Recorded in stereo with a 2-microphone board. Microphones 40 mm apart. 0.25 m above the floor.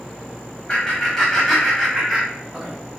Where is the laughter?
15° left (ahead or behind), 1.4 m; by 2.7 s 15° right (ahead or behind), 1.9 m.